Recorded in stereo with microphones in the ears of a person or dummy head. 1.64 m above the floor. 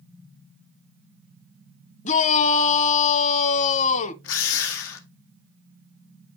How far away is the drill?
About 1.2 m.